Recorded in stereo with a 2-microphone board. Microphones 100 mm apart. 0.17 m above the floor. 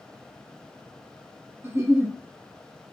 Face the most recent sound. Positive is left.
turn(degrees=-25)  # may be behind; listen again after turning